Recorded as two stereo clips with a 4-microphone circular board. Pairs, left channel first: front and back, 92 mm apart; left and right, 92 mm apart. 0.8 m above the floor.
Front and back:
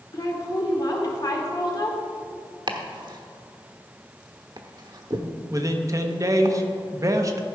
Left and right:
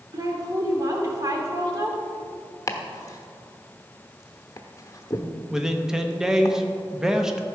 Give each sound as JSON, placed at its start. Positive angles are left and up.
{"t": 0.1, "sound": "a woman speaking", "azimuth_deg": -40, "distance_m": 2.0}
{"t": 2.7, "sound": "chopping", "azimuth_deg": 145, "distance_m": 1.0}
{"t": 5.5, "sound": "a man speaking", "azimuth_deg": -170, "distance_m": 0.9}